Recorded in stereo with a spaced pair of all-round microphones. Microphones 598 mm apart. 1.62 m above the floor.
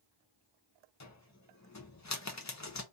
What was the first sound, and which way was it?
A cupboard door, 30° left (ahead or behind).